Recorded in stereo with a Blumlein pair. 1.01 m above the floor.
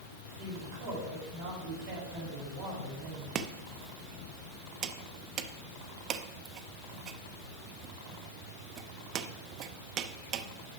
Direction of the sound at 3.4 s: 30° right.